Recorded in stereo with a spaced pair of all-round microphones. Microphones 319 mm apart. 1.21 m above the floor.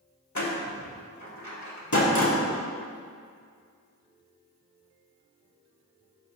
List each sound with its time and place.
0.3 s a door slam: 65° left (ahead or behind), 1.2 m